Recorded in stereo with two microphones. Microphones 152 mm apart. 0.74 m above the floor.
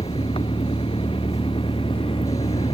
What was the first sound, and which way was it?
An engine running, 40° left (ahead or behind).